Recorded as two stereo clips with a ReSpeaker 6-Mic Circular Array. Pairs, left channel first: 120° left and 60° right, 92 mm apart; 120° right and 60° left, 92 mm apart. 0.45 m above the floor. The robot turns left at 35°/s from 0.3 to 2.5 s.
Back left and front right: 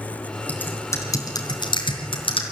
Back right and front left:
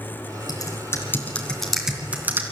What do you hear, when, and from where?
0.5 s typing on a keyboard: 165° right, 3 m; by 2.4 s 125° left, 3 m